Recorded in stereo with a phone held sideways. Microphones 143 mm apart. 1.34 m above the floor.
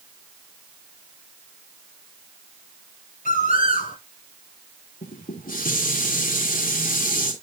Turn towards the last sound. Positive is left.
turn(degrees=85)